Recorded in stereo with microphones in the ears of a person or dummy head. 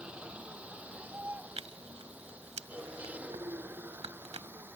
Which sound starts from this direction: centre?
A vehicle, at 0.0 s.